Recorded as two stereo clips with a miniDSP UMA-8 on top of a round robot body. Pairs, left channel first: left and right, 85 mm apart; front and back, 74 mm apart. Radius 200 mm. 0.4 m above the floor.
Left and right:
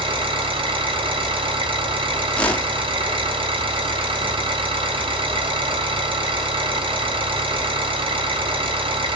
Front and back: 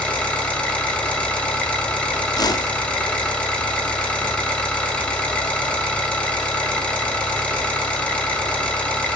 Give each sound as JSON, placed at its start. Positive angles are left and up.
{"t": 0.0, "sound": "an engine running", "azimuth_deg": -75, "distance_m": 4.0}
{"t": 2.3, "sound": "a whoosh", "azimuth_deg": 15, "distance_m": 1.3}